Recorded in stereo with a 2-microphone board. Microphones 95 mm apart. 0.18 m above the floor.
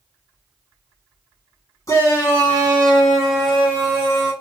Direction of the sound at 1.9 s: 35° left (ahead or behind).